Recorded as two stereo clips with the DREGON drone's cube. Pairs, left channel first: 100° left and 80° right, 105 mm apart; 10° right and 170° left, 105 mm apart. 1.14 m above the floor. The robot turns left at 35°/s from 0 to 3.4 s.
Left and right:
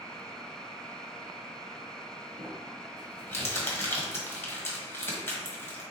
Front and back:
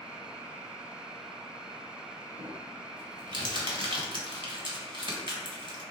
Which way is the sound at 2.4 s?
165° right.